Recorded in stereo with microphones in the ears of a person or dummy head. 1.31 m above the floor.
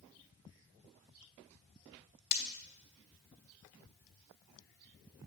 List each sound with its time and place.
2.3 s breaking glass: 50° left (ahead or behind), 1.6 m